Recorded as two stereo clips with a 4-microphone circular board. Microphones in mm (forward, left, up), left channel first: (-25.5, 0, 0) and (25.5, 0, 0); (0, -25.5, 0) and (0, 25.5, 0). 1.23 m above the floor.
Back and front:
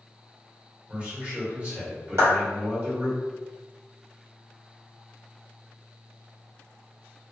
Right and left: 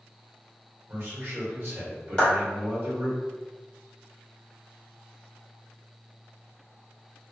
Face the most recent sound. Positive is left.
turn(degrees=-20)